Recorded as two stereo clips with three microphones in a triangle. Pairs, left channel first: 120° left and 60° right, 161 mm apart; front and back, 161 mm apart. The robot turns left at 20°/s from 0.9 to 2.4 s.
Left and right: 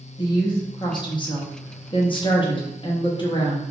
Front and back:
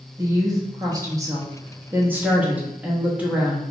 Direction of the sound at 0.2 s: 140° left.